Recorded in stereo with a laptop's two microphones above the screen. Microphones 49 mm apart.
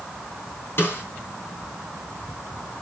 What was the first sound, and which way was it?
A snare drum, 50° left (ahead or behind).